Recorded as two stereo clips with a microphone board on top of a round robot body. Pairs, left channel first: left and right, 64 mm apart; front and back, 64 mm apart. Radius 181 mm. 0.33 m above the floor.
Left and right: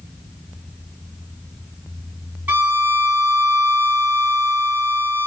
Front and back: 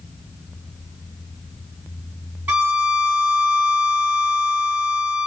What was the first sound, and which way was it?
A violin, 135° right.